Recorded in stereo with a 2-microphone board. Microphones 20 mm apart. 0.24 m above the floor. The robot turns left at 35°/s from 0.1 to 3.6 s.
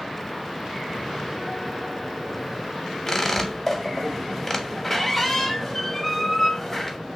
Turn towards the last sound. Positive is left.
turn(degrees=15)  # may be behind; listen again after turning